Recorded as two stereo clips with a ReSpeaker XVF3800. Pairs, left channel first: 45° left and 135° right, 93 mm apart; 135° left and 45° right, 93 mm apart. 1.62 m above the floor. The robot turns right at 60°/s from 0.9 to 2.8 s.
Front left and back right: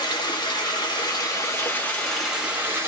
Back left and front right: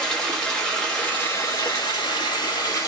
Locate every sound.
0.0 s running water: 55° left, 1.2 m; by 2.9 s 170° left, 1.2 m